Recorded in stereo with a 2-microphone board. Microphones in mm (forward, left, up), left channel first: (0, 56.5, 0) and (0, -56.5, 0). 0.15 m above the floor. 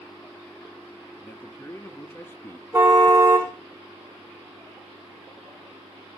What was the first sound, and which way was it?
A man speaking, 20° left (ahead or behind).